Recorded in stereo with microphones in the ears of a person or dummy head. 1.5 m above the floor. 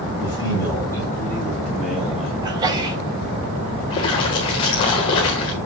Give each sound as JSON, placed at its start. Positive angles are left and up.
{"t": 0.2, "sound": "a man speaking", "side_deg": 20, "distance_m": 7.0}
{"t": 2.4, "sound": "a sneeze", "side_deg": -20, "distance_m": 3.5}
{"t": 3.9, "sound": "a splash", "side_deg": 20, "distance_m": 1.4}